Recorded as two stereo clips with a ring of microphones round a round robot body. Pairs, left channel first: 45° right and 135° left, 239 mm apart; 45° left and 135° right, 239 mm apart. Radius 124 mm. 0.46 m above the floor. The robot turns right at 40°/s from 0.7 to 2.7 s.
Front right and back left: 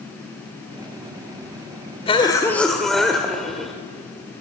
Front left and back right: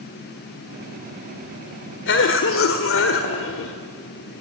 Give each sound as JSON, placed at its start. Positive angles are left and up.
{"t": 2.1, "sound": "a cough", "azimuth_deg": 15, "distance_m": 1.6}